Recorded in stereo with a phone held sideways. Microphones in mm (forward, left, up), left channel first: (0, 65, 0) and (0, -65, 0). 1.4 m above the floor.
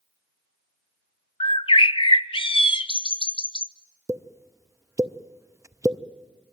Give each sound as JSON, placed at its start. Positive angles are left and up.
{"t": 1.4, "sound": "a bird", "side_deg": 40, "distance_m": 0.6}
{"t": 4.1, "sound": "a pop", "side_deg": -20, "distance_m": 0.5}